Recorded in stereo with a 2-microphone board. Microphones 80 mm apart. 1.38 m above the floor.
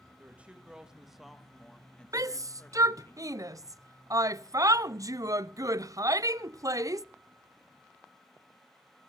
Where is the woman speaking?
20° right (ahead or behind), 2 m; by 3.1 s 35° left (ahead or behind), 2 m.